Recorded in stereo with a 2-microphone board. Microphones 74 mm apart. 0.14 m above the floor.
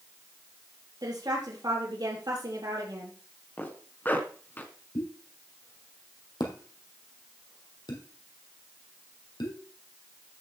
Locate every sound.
1.0 s a woman speaking: 65° right (ahead or behind), 4 m
3.6 s a zipper: 25° left (ahead or behind), 1.7 m
5.0 s a pop: 75° left (ahead or behind), 2.5 m